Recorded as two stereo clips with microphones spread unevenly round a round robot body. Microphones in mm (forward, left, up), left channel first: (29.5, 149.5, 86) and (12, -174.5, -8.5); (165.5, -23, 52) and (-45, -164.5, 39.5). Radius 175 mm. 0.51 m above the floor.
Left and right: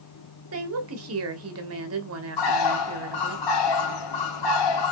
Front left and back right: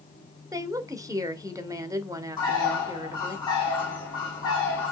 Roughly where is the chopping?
No chopping in this recording.